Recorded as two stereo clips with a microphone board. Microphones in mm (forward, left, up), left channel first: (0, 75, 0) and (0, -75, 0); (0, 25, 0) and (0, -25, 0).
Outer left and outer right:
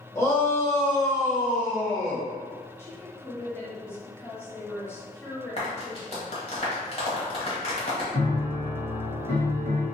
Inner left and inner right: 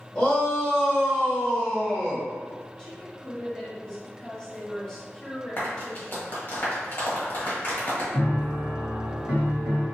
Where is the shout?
20° left (ahead or behind), 1.2 m.